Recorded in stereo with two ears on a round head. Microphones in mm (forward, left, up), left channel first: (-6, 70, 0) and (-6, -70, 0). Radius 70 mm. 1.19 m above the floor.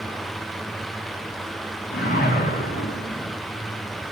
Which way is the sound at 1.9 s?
60° left (ahead or behind).